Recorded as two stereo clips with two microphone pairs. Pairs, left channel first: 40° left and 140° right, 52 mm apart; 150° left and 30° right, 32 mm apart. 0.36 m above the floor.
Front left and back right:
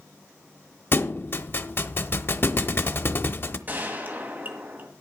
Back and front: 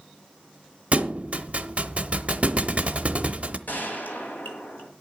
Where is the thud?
10° left, 0.7 m.